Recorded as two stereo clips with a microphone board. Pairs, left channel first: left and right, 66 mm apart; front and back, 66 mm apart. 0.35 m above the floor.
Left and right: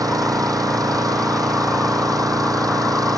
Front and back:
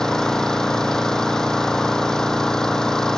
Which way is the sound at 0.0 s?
80° right.